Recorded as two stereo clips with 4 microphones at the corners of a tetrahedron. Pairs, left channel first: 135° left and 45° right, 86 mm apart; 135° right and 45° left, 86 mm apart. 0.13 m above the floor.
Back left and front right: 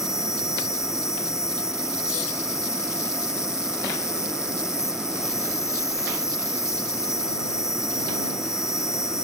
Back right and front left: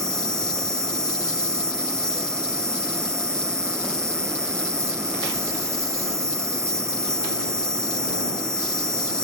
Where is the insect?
90° left.